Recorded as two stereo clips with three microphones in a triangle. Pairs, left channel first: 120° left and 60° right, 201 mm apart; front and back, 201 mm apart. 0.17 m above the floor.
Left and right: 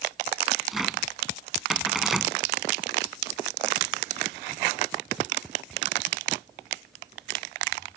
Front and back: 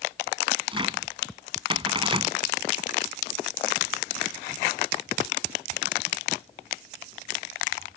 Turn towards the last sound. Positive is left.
turn(degrees=-150)